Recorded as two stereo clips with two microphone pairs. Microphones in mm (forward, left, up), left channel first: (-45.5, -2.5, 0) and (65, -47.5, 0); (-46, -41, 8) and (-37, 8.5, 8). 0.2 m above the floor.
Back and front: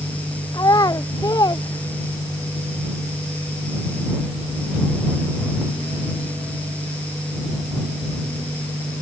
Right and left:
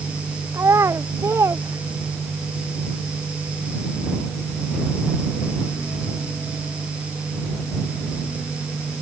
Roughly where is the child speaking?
Left.